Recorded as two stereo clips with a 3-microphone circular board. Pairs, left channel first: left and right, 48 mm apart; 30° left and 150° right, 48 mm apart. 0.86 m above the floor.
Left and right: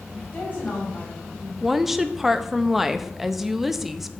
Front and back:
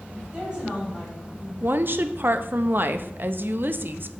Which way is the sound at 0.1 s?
140° left.